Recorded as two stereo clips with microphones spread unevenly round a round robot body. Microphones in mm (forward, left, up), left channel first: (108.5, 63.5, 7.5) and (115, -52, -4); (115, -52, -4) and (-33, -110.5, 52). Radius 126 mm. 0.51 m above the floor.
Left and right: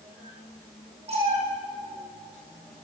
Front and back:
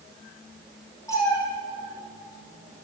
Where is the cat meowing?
55° right, 5.5 m.